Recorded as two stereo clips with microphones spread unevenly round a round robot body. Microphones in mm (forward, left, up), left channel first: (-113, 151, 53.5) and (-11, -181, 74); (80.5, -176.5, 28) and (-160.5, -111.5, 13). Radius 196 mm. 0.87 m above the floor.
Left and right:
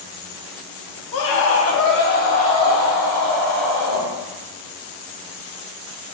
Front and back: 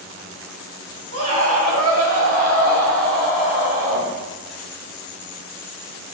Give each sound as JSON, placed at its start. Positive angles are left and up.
{"t": 1.1, "sound": "a scream", "azimuth_deg": 125, "distance_m": 1.5}